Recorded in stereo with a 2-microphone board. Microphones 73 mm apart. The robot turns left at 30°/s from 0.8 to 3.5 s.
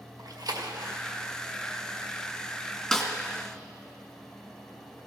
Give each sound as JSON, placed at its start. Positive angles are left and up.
{"t": 0.2, "sound": "a splash", "side_deg": -65, "distance_m": 1.6}
{"t": 2.9, "sound": "a snare drum", "side_deg": 5, "distance_m": 2.0}